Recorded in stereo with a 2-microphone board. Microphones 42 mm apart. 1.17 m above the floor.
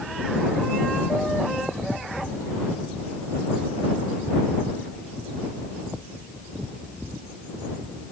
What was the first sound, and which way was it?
Only background noise.